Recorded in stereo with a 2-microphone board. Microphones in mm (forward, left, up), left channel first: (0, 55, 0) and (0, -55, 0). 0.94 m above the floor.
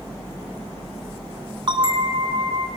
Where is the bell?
45° right (ahead or behind), 2.0 m.